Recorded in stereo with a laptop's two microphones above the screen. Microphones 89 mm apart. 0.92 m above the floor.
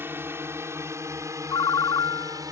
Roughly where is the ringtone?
Left.